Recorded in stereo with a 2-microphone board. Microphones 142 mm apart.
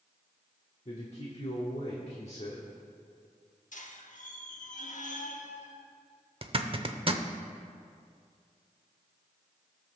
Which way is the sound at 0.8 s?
50° left (ahead or behind).